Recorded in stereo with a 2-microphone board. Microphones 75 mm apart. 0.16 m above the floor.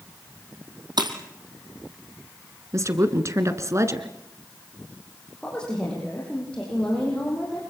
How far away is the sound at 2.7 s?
About 1.9 m.